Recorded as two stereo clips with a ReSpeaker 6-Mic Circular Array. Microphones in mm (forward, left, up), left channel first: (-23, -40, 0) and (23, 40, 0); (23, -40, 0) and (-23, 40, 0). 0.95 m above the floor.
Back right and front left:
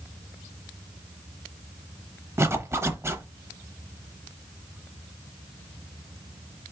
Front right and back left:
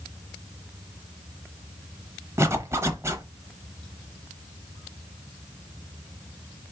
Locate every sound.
2.4 s a zipper: 90° left, 0.8 m